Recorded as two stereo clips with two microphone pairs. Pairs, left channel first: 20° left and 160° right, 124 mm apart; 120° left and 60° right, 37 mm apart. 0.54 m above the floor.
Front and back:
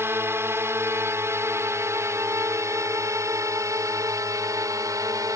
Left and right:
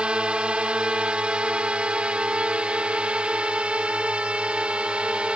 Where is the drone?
100° right; by 5.4 s 105° right.